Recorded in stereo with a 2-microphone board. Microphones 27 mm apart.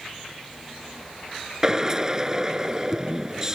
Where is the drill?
20° right (ahead or behind).